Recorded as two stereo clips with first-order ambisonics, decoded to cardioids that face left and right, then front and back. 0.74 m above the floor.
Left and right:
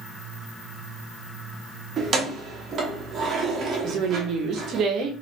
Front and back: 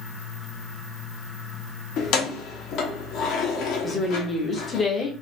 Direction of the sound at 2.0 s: 30° right.